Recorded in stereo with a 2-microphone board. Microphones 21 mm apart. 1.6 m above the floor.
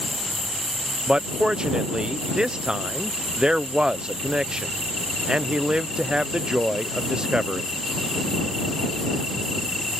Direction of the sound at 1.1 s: 40° right (ahead or behind).